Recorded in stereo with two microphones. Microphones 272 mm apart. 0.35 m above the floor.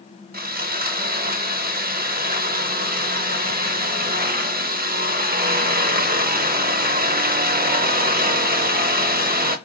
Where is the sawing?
30° right (ahead or behind), 0.6 m.